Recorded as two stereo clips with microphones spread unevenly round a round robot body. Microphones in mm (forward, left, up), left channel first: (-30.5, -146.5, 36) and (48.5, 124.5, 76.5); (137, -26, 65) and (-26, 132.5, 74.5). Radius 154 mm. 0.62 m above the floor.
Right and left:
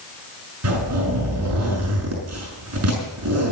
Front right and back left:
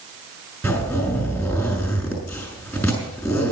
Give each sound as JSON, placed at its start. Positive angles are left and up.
{"t": 0.6, "sound": "a zipper", "azimuth_deg": 35, "distance_m": 6.0}